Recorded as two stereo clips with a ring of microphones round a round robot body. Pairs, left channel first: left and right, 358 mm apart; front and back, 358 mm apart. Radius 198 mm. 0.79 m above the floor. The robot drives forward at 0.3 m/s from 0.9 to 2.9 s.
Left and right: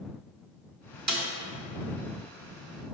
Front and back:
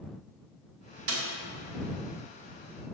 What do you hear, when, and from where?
1.1 s a snare drum: 130° right, 1.6 m